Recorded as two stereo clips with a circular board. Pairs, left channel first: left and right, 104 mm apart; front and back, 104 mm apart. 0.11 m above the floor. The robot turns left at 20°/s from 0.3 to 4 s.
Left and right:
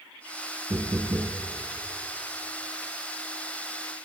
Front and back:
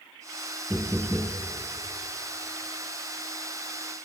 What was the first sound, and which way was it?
Knocking, 105° right.